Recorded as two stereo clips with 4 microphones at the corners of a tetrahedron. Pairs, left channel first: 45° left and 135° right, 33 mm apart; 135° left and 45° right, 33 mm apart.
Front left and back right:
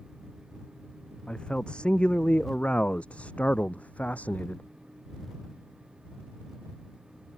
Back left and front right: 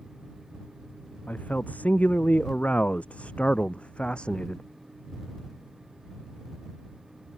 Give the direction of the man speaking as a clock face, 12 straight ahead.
9 o'clock.